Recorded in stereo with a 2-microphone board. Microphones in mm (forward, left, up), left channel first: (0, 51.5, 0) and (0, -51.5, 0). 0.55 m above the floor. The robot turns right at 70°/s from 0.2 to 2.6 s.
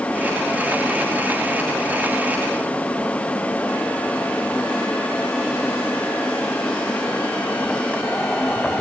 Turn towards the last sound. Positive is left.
No sound to turn to.